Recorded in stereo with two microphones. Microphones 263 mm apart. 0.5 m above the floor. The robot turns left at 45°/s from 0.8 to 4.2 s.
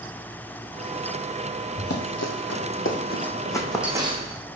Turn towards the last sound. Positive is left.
turn(degrees=-25)  # may be behind; listen again after turning